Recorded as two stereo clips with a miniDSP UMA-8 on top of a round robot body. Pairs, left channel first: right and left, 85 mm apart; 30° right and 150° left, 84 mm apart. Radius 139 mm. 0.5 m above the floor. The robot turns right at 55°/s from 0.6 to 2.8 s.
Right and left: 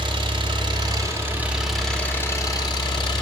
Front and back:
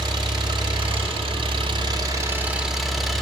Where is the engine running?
115° left, 1.4 m; by 3.2 s 120° right, 1.4 m.